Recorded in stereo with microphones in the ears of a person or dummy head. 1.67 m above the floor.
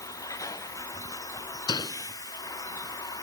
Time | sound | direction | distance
0.0 | a vehicle | 20° left (ahead or behind) | ?
1.7 | a door slam | 25° left (ahead or behind) | ?